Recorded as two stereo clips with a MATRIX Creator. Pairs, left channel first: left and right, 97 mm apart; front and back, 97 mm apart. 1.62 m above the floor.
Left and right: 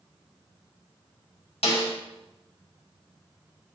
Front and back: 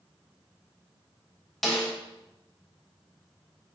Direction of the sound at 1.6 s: 90° left.